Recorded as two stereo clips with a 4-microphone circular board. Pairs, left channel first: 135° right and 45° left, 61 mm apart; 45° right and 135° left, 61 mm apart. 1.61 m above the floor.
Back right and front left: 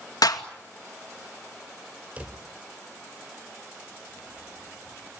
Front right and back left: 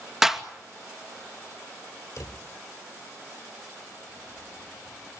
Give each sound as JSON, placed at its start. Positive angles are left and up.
{"t": 0.2, "sound": "a clap", "azimuth_deg": -145, "distance_m": 2.5}
{"t": 2.2, "sound": "a drawer", "azimuth_deg": -20, "distance_m": 2.5}